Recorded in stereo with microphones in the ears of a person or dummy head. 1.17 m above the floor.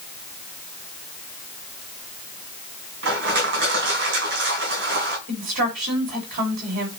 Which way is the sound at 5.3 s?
50° right (ahead or behind).